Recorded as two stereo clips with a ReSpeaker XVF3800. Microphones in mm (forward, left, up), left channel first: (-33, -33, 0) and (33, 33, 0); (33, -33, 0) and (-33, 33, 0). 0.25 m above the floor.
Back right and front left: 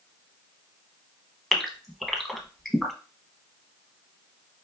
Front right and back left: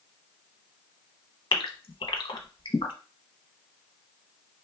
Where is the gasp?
45° right, 0.7 m.